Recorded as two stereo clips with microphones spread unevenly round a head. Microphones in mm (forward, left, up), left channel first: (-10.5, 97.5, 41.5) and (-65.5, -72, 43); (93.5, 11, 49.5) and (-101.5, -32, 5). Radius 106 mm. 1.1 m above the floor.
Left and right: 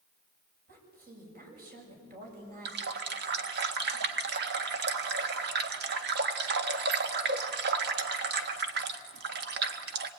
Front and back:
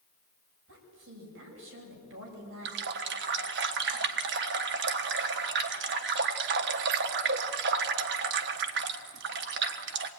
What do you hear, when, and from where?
0.7 s a woman speaking: 145° right, 7.5 m
2.6 s a running tap: 135° right, 1.4 m